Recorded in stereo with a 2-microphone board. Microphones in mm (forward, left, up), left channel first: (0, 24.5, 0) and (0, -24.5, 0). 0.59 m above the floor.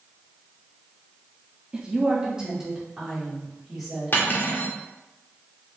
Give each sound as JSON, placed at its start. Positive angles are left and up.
{"t": 1.7, "sound": "a woman speaking", "side_deg": -20, "distance_m": 0.7}
{"t": 4.1, "sound": "cutlery clinking", "side_deg": 45, "distance_m": 0.7}